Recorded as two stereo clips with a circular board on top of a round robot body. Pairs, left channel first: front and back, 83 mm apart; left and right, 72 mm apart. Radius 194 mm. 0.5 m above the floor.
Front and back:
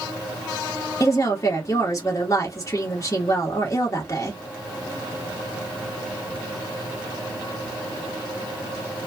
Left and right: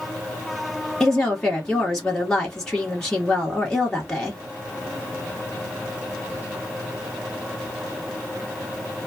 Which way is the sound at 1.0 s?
15° left.